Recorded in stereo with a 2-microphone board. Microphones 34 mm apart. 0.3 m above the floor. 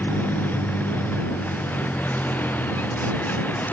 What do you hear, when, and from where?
0.0 s a vehicle: 65° left (ahead or behind)